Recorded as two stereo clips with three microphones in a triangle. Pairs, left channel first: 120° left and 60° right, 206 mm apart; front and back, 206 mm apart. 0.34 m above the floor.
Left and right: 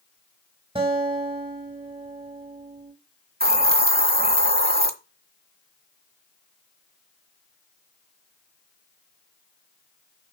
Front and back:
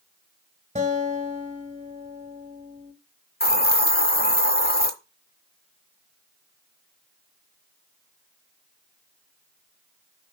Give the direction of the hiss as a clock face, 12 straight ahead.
1 o'clock.